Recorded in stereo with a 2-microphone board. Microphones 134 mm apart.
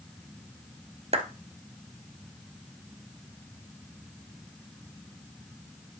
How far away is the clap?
About 1.3 m.